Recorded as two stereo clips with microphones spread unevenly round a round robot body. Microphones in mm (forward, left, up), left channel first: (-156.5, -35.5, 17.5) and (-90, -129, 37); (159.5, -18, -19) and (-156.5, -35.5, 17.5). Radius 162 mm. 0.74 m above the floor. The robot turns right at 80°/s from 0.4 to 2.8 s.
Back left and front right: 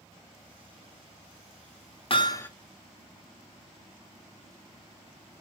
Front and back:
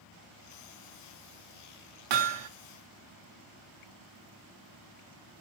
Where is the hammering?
170° left, 1.0 m; by 2.5 s 160° right, 1.0 m.